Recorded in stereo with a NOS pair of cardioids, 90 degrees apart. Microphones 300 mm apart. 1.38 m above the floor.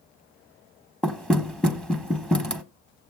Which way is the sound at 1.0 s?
5° left.